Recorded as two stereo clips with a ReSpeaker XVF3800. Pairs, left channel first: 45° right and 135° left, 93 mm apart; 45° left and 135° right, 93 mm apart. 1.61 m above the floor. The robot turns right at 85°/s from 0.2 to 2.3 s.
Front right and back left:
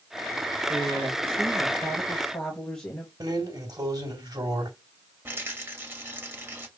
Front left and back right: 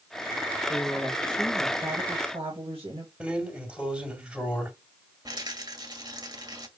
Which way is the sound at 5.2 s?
165° right.